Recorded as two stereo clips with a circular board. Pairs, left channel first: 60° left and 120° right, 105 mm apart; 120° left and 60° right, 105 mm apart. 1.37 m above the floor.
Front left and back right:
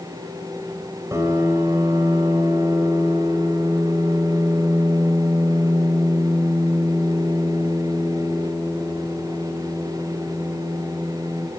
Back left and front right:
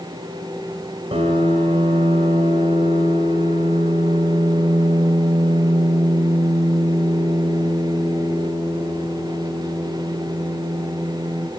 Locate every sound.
1.1 s a piano: 60° right, 2.5 m